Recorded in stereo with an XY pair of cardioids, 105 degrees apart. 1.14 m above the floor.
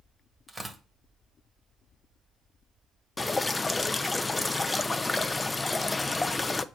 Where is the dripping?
20° left, 0.7 m.